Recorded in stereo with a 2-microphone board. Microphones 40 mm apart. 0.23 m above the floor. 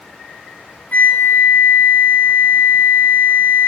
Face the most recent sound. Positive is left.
turn(degrees=45)  # may be behind; listen again after turning